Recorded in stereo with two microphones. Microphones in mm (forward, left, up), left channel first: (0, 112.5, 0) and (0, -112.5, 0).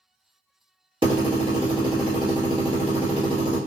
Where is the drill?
20° right (ahead or behind), 1.4 m.